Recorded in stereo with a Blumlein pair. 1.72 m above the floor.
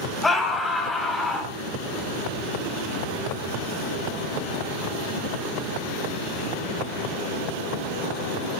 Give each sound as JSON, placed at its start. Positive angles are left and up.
{"t": 0.2, "sound": "a scream", "azimuth_deg": 10, "distance_m": 4.5}